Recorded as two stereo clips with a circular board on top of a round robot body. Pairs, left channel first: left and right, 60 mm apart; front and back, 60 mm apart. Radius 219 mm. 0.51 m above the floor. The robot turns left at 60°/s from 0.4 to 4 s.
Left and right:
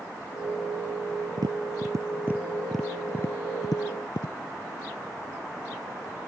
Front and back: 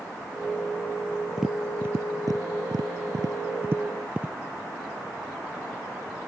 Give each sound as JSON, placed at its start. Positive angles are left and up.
{"t": 1.4, "sound": "tapping", "azimuth_deg": -95}